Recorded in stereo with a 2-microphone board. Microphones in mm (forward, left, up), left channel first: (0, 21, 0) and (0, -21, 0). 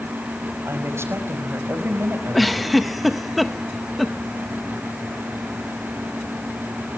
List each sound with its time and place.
0.7 s a woman speaking: 75° right (ahead or behind), 5 m
2.3 s a giggle: centre (ahead or behind), 1.3 m